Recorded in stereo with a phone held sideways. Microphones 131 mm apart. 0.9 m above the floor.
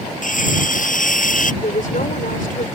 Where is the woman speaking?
80° left.